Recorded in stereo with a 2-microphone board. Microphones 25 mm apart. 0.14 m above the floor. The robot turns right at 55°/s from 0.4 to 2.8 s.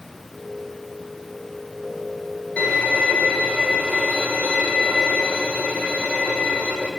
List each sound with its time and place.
2.6 s a violin: 60° left (ahead or behind), 3.5 m; by 6.9 s 70° left (ahead or behind), 3.5 m